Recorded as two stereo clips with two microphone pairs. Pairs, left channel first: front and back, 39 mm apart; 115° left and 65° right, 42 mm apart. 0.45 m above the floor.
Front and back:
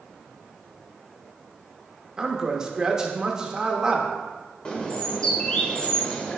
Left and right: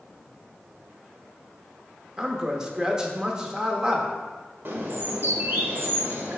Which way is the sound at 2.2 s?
125° right.